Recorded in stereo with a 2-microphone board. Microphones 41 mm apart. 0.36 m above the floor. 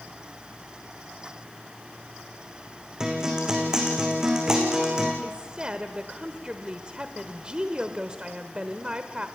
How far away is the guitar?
About 4 m.